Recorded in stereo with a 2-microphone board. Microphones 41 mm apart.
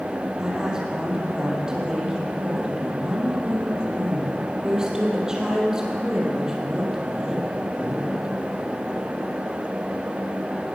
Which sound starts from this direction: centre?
A woman speaking, at 0.4 s.